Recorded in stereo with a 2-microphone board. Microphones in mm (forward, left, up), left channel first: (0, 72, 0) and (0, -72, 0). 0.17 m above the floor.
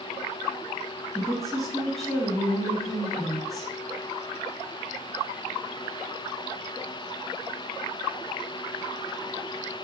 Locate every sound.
1.1 s a woman speaking: centre (ahead or behind), 1.9 m